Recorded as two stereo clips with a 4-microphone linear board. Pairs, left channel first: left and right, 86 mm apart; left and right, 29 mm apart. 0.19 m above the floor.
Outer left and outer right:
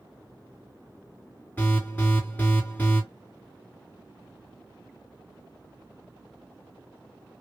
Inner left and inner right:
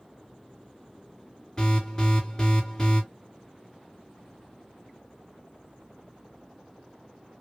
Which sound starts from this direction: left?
An alarm, at 1.6 s.